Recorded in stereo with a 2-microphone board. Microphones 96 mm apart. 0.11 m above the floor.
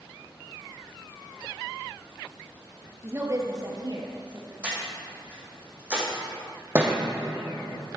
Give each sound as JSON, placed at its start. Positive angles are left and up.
{"t": 3.0, "sound": "a woman speaking", "side_deg": -25, "distance_m": 1.6}
{"t": 4.6, "sound": "breathing", "side_deg": -15, "distance_m": 3.5}
{"t": 6.8, "sound": "a thud", "side_deg": -25, "distance_m": 2.0}